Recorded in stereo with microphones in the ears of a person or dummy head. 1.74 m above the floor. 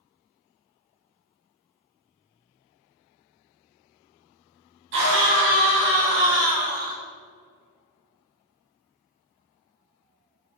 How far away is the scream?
About 3 m.